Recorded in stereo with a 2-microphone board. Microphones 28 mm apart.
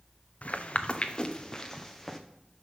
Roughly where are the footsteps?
Left.